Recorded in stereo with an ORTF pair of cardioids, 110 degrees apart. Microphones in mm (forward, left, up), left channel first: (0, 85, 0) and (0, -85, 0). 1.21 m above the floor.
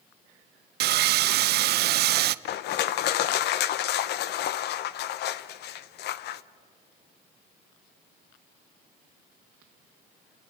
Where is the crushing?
70° left, 0.8 m.